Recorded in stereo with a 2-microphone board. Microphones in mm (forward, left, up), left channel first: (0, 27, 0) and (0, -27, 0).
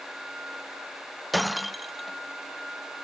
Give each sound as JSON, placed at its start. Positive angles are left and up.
{"t": 1.3, "sound": "breaking glass", "side_deg": 0}